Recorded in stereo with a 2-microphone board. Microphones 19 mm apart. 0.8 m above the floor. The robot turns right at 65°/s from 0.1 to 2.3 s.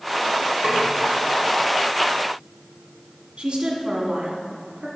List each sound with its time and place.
0.6 s a snare drum: 60° right (ahead or behind), 1.9 m; by 0.8 s 65° right (ahead or behind), 1.9 m
3.4 s a woman speaking: 65° right (ahead or behind), 1.7 m